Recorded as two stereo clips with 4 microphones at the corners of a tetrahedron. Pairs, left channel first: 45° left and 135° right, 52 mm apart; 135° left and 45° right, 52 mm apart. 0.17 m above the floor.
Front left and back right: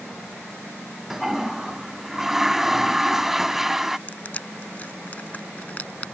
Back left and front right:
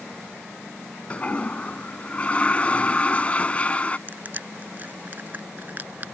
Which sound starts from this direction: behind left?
A toilet flushing, at 1.1 s.